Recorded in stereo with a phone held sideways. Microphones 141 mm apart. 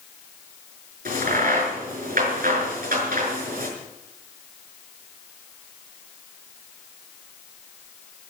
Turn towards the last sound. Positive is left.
turn(degrees=-85)